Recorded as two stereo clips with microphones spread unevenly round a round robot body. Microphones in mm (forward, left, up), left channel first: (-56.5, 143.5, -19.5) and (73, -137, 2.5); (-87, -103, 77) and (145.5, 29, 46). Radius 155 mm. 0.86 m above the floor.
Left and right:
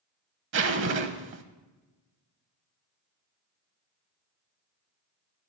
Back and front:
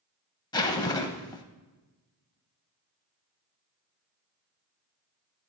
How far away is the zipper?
About 0.8 m.